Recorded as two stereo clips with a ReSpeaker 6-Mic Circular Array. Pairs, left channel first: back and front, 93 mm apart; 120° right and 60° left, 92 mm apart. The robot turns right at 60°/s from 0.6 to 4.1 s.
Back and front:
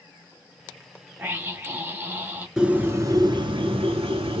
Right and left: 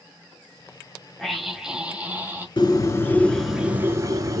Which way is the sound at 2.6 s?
85° right.